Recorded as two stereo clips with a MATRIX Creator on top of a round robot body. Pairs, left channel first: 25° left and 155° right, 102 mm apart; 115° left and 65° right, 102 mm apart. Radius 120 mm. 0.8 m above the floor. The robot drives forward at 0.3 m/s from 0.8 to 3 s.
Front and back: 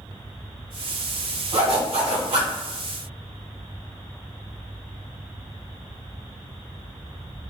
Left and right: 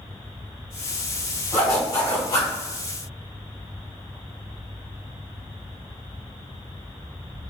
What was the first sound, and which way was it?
A zipper, 175° left.